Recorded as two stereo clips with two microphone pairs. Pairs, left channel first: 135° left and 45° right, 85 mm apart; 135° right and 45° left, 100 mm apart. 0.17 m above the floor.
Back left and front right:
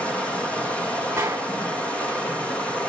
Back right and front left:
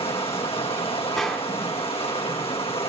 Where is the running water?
150° right, 2.5 m.